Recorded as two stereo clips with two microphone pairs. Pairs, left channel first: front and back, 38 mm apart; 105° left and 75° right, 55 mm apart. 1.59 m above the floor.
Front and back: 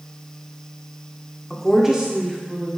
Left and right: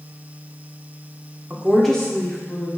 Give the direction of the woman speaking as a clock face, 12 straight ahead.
2 o'clock.